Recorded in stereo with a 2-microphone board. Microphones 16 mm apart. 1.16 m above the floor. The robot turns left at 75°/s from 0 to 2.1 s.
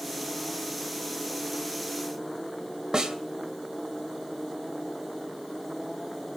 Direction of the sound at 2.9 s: 45° right (ahead or behind).